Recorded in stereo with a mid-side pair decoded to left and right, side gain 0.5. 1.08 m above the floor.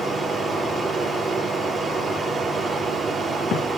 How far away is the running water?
About 8.5 m.